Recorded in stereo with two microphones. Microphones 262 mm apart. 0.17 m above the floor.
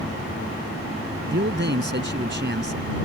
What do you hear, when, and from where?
1.3 s a man speaking: 45° right (ahead or behind)